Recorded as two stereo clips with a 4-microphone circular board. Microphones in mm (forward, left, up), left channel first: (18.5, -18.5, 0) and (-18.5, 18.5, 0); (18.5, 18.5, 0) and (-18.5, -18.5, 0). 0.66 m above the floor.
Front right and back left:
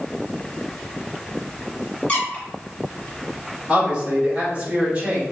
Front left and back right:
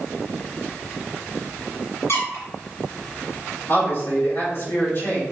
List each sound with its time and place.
2.1 s a squeak: 20° left, 1.7 m
3.7 s a man speaking: 70° left, 1.8 m